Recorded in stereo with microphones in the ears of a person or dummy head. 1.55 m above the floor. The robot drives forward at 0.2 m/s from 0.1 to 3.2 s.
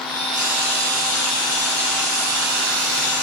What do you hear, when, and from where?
0.3 s frying: 5° right (ahead or behind), 3.5 m